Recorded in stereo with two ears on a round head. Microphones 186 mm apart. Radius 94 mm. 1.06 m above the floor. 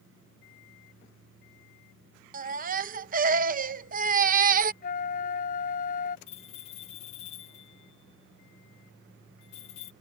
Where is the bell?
30° left (ahead or behind).